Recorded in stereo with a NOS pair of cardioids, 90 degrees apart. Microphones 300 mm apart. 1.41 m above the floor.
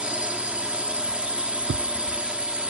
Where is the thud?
40° right.